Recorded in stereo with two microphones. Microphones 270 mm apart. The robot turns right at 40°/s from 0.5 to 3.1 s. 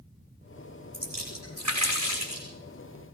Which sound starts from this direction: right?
A splash, at 0.9 s.